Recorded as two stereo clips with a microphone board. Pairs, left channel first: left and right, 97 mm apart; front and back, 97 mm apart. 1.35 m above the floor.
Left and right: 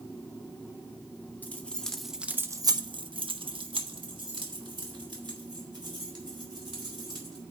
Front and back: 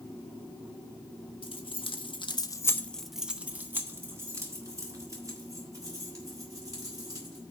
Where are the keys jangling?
20° left, 1.4 m; by 7.4 s 130° right, 5 m.